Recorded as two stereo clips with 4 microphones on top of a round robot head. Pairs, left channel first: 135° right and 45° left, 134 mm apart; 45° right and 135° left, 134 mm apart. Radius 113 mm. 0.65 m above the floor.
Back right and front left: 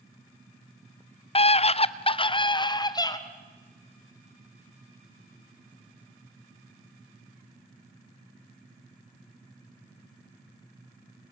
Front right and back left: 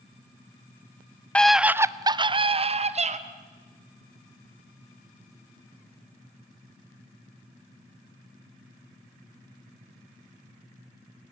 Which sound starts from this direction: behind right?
A scream, at 1.4 s.